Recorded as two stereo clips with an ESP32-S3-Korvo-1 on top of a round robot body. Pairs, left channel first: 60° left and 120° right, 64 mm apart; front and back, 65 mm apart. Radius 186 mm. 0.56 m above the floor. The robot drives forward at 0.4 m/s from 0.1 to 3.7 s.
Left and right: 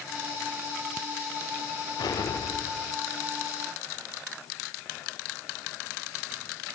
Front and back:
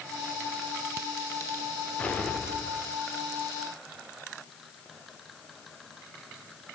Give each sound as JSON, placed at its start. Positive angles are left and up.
{"t": 2.0, "sound": "an explosion", "azimuth_deg": 70, "distance_m": 1.4}